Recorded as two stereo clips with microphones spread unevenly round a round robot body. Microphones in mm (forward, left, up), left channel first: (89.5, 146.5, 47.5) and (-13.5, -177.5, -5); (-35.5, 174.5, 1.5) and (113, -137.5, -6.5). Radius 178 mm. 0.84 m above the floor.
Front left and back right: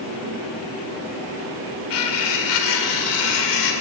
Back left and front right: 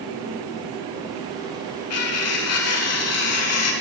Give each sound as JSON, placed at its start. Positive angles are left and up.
{"t": 1.9, "sound": "cutlery clinking", "azimuth_deg": 70, "distance_m": 2.0}